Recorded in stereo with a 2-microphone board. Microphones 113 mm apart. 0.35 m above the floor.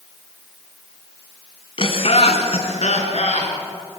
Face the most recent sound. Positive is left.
turn(degrees=80)